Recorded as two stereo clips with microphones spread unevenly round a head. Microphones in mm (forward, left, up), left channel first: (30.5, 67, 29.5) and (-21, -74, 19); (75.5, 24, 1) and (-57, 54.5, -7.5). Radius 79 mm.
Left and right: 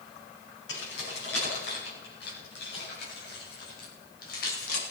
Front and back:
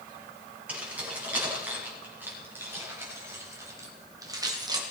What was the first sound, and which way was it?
Keys jangling, 90° left.